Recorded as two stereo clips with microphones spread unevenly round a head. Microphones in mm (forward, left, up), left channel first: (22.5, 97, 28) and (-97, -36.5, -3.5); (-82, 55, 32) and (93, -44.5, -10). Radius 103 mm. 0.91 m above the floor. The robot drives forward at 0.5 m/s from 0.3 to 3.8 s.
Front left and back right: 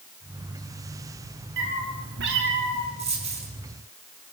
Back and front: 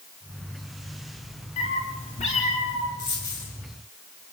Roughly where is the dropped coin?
Behind.